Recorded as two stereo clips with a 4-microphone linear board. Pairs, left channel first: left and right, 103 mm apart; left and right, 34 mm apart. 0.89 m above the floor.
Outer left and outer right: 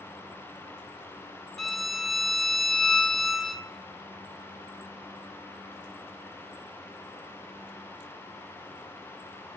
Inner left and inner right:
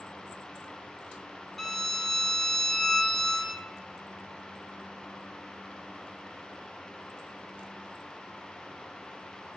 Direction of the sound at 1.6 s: 5° left (ahead or behind).